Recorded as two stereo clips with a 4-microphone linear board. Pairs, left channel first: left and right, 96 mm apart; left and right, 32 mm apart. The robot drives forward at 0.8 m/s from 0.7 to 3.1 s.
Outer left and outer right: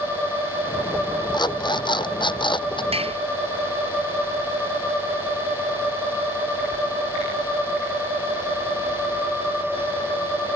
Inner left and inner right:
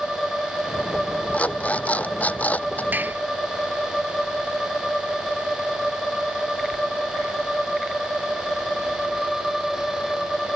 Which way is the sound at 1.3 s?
50° left (ahead or behind).